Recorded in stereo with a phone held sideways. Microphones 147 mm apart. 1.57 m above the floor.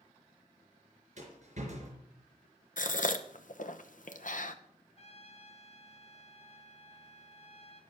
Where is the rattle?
55° right (ahead or behind), 4 m.